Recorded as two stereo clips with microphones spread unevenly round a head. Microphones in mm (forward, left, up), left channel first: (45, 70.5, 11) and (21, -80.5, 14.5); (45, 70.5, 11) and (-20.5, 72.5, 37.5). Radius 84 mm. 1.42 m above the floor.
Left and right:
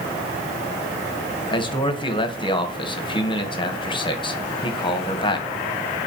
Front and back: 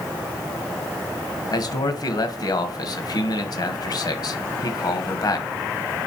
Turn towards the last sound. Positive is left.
turn(degrees=20)